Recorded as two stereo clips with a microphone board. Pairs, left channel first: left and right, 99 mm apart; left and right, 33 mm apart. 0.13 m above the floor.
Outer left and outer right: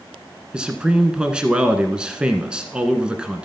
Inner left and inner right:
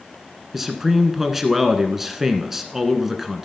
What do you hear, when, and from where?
0.5 s a man speaking: 10° right (ahead or behind), 1.2 m